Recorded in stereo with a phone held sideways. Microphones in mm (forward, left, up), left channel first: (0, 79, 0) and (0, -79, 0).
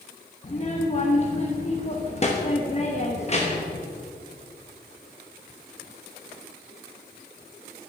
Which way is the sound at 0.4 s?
40° left (ahead or behind).